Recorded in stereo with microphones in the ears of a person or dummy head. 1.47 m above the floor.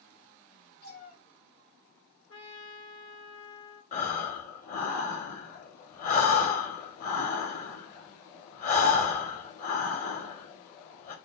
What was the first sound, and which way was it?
A cat meowing, 55° left (ahead or behind).